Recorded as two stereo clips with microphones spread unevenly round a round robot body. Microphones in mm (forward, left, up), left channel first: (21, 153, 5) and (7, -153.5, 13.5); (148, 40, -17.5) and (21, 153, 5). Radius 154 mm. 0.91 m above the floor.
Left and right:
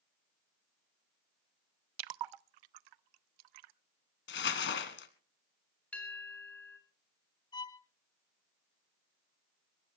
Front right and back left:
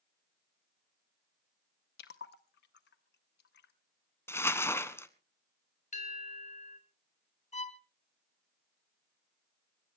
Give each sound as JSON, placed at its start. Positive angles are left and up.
{"t": 2.0, "sound": "a splash", "azimuth_deg": -80, "distance_m": 0.5}
{"t": 4.3, "sound": "crumpling", "azimuth_deg": 40, "distance_m": 1.3}
{"t": 5.9, "sound": "a bell", "azimuth_deg": 0, "distance_m": 4.0}
{"t": 7.5, "sound": "a violin", "azimuth_deg": 10, "distance_m": 1.2}